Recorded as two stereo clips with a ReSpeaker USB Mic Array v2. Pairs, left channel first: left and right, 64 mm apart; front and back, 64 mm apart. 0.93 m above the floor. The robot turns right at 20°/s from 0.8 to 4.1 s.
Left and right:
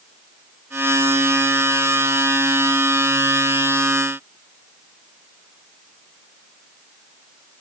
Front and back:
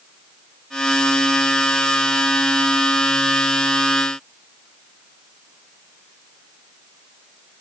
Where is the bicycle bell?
I don't hear a bicycle bell.